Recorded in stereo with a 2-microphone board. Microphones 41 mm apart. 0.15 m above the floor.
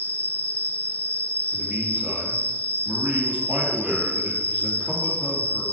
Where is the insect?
40° left (ahead or behind), 1.0 m.